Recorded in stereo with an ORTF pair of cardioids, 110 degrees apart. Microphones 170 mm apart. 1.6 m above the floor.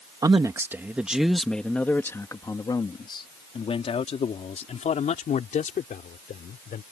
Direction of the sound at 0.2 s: 20° right.